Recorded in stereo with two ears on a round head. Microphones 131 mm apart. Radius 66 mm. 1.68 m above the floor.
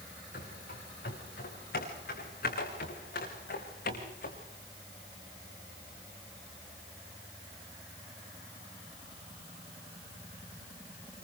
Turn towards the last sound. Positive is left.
turn(degrees=70)  # may be behind; listen again after turning